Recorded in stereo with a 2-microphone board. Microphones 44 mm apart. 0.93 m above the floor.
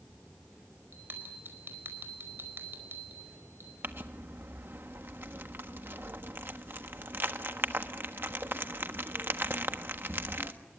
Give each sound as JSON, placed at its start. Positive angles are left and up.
{"t": 0.9, "sound": "a bell", "side_deg": -50, "distance_m": 4.5}
{"t": 3.8, "sound": "crumpling", "side_deg": -55, "distance_m": 1.4}